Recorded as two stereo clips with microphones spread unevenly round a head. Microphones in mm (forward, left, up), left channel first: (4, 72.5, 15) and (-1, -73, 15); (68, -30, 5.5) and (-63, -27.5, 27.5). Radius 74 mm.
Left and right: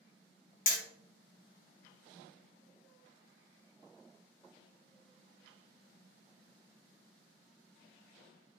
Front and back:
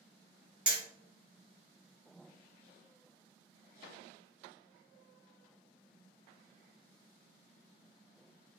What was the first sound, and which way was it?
Hammering, 110° left.